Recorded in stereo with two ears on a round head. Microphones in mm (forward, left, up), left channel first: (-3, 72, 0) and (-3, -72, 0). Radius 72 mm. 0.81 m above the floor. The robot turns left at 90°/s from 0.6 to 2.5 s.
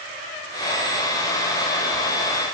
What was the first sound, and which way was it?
Only background noise.